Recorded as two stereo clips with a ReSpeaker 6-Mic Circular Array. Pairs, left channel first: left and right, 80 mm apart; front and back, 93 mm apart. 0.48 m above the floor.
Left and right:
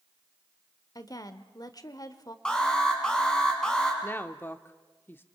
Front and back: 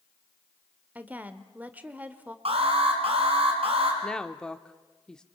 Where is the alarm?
170° left, 4 m.